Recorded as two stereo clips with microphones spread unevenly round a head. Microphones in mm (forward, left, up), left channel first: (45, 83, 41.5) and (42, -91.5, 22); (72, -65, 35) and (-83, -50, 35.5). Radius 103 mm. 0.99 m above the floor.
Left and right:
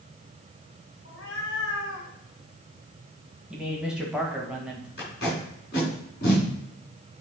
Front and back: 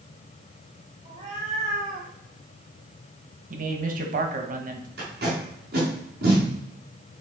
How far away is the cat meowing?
About 2.5 m.